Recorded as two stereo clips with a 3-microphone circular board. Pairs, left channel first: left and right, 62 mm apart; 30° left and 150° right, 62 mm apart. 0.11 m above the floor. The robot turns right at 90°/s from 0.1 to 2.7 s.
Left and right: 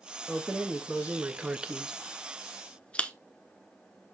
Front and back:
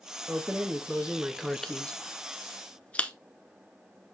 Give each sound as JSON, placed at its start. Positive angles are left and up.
{"t": 0.3, "sound": "keys jangling", "azimuth_deg": -160, "distance_m": 0.8}